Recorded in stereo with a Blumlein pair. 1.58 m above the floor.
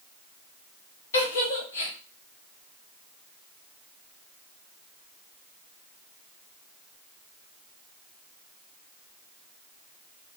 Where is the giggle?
65° left, 1.0 m.